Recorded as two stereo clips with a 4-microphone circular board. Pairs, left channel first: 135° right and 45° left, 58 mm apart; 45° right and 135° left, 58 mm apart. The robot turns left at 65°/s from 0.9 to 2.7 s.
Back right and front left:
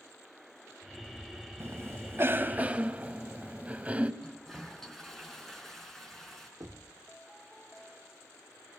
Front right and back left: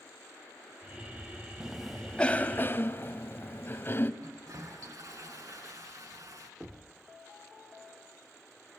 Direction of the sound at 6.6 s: 60° left.